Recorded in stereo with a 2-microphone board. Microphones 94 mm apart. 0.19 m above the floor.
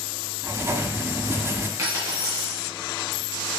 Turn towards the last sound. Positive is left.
turn(degrees=-35)  # may be behind; listen again after turning